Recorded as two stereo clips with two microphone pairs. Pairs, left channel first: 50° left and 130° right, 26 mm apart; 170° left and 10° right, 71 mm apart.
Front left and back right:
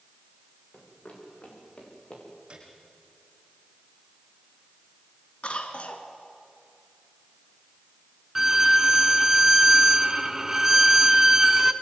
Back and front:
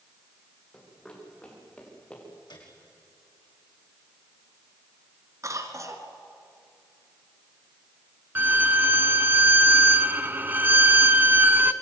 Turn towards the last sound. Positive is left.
turn(degrees=-65)